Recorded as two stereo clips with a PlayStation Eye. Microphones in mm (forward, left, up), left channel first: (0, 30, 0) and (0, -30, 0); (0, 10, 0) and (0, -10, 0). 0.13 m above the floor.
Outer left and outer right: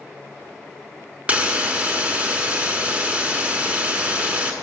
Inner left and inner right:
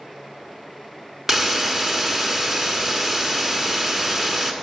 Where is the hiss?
25° right (ahead or behind), 0.8 m.